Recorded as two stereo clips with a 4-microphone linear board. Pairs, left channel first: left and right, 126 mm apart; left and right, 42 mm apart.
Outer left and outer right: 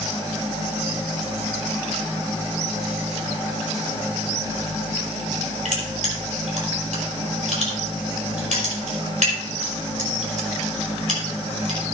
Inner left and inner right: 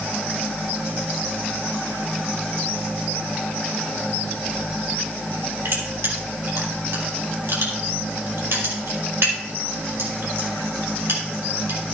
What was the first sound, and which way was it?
Crushing, 75° right (ahead or behind).